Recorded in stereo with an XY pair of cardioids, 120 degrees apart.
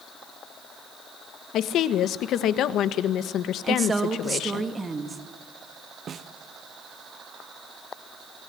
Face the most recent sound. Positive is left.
turn(degrees=-45)